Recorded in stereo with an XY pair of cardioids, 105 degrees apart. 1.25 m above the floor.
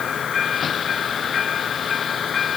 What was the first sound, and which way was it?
Only background noise.